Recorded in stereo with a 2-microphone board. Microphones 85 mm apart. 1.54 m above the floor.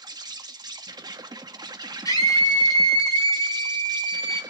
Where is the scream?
50° left (ahead or behind), 4.5 m.